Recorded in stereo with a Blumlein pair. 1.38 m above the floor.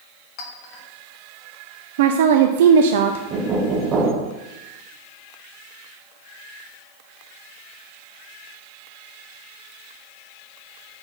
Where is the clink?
35° left, 1.7 m.